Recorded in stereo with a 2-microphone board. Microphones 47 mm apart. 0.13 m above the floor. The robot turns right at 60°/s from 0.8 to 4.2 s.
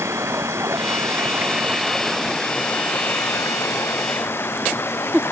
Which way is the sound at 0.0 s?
80° right.